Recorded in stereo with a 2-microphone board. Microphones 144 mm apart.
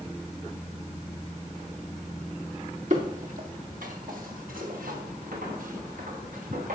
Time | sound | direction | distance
2.9 | footsteps | 65° right (ahead or behind) | 3.5 m